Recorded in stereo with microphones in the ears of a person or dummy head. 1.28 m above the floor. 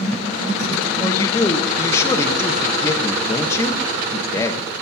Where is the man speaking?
25° left (ahead or behind), 1.4 m.